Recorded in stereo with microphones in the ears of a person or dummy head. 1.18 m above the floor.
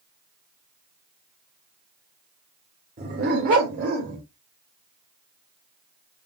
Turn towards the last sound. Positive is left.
turn(degrees=-45)  # may be behind; listen again after turning